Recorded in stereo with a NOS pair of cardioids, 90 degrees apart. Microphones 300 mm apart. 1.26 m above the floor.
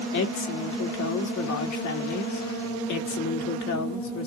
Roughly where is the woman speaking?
Ahead left.